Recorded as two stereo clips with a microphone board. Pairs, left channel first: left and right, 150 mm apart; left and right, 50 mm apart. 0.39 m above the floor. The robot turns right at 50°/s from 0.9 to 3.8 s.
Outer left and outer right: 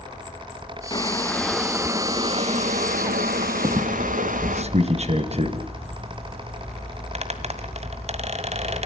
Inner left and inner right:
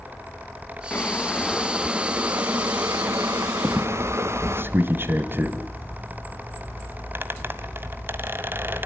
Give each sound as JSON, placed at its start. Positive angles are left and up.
{"t": 0.9, "sound": "boiling", "azimuth_deg": 150, "distance_m": 1.3}
{"t": 3.6, "sound": "a squeak", "side_deg": -40, "distance_m": 1.3}